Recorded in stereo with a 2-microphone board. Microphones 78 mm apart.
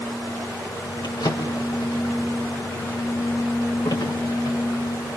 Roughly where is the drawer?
Left.